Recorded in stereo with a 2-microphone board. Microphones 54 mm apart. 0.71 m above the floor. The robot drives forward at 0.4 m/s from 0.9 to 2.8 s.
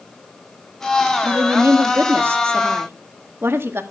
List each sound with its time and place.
1.2 s a woman speaking: 45° right (ahead or behind), 1.4 m; by 3.8 s 50° right (ahead or behind), 1.3 m